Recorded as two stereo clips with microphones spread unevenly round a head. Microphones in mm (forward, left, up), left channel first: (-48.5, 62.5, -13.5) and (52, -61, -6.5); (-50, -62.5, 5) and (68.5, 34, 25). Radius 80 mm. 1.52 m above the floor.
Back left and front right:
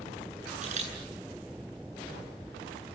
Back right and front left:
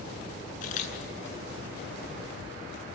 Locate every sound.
0.6 s a camera shutter: 100° right, 10 m